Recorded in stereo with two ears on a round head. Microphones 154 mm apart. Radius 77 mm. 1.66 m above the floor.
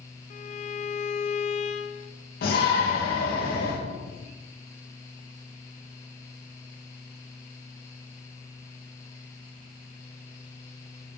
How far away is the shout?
About 2 m.